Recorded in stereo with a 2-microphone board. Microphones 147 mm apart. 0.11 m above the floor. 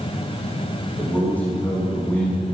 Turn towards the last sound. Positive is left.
turn(degrees=15)  # may be behind; listen again after turning